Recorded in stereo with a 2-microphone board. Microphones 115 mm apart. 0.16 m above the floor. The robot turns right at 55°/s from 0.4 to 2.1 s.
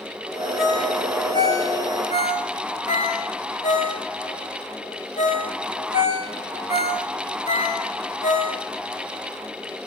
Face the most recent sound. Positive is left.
turn(degrees=80)